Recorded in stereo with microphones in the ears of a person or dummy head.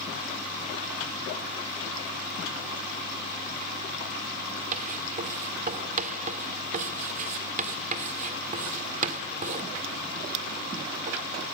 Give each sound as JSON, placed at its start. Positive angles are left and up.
{"t": 4.7, "sound": "writing", "side_deg": -40, "distance_m": 1.8}